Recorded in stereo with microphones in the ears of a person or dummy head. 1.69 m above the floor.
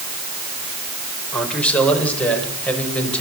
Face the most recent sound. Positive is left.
turn(degrees=5)  # may be behind; listen again after turning